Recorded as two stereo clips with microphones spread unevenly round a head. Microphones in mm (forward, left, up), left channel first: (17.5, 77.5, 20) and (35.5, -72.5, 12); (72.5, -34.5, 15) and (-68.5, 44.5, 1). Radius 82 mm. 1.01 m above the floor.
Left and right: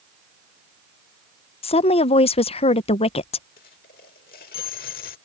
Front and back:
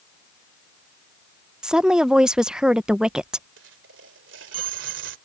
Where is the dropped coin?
135° left.